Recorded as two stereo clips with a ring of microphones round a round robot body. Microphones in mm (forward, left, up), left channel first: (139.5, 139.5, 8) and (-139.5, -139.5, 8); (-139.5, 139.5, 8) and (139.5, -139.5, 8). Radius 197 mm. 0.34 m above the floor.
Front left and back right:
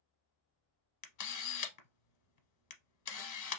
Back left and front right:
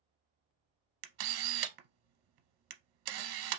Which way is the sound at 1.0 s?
5° right.